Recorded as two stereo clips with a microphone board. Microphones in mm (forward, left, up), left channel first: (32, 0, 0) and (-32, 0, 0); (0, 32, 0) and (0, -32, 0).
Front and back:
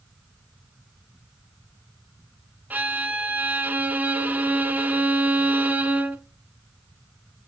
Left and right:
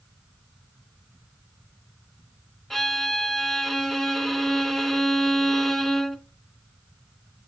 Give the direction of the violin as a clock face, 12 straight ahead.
6 o'clock.